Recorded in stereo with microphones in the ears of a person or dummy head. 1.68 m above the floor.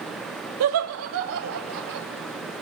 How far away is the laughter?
About 1.6 m.